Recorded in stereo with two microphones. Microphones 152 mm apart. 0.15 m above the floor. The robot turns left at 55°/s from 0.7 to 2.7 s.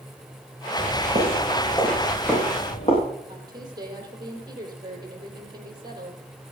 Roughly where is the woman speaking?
Right.